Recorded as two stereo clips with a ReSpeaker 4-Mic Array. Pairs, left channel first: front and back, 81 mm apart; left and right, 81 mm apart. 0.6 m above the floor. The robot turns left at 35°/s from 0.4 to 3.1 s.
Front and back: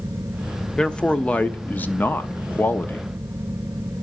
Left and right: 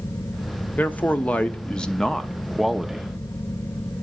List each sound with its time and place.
0.8 s a man speaking: 65° left, 0.6 m; by 3.1 s 15° right, 0.6 m